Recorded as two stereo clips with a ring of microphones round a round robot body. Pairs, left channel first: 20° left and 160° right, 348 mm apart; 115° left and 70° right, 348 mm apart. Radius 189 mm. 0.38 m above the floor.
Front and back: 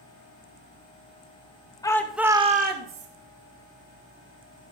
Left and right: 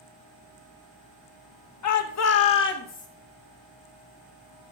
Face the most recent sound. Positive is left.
turn(degrees=175)